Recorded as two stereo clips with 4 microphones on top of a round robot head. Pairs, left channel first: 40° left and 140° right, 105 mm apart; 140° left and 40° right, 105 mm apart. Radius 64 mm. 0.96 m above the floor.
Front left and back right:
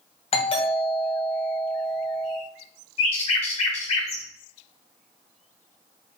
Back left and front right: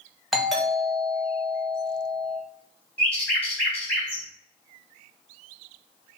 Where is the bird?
65° left, 2 m.